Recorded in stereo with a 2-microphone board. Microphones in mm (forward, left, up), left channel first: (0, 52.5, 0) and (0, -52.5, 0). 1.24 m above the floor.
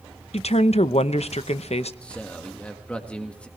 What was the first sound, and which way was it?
A woman speaking, 80° left.